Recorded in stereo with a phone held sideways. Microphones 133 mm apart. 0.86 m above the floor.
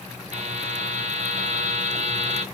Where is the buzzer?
60° right (ahead or behind), 1.1 m.